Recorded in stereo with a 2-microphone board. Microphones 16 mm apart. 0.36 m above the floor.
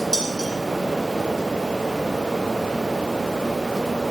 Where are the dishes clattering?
75° right (ahead or behind), 9 m.